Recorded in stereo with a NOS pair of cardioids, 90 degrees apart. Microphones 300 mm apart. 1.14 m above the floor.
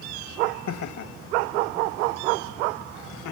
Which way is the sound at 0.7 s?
60° left.